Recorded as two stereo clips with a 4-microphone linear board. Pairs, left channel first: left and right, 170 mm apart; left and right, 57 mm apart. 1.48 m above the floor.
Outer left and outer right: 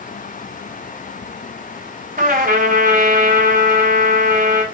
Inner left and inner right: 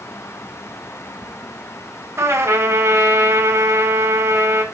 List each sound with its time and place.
2.2 s a trumpet: 50° right (ahead or behind), 4 m